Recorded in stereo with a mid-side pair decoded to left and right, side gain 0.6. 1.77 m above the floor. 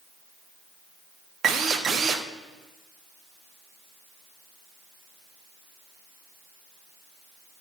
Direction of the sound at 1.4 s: 40° right.